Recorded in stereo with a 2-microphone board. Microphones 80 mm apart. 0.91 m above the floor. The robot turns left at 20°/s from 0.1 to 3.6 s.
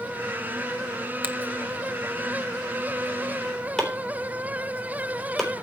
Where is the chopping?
5° left (ahead or behind), 4 m.